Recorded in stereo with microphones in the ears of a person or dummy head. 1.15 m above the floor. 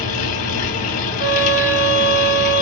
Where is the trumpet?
10° right (ahead or behind), 1.8 m.